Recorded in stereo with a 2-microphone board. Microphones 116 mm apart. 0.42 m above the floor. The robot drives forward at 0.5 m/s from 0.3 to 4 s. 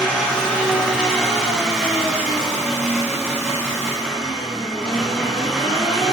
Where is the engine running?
5° left (ahead or behind), 2 m.